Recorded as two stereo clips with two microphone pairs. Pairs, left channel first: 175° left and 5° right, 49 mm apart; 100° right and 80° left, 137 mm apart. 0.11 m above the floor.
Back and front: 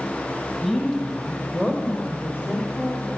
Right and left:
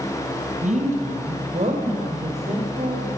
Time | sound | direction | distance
0.6 | a woman speaking | 100° left | 3.5 m